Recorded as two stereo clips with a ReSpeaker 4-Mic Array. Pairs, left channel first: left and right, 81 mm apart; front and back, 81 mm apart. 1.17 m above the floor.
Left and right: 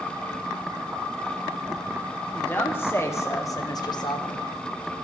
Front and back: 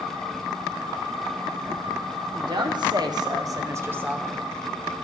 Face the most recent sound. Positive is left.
turn(degrees=90)